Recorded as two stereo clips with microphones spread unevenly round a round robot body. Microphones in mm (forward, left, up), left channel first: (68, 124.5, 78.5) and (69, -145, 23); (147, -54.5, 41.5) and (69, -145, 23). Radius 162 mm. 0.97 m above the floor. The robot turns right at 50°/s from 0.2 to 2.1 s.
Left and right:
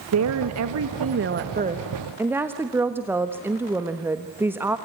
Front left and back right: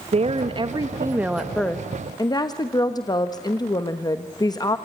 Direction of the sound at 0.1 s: 105° right.